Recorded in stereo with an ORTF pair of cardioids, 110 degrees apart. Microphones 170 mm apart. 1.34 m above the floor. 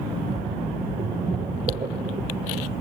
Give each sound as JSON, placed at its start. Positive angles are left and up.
{"t": 0.1, "sound": "a splash", "azimuth_deg": -30, "distance_m": 1.2}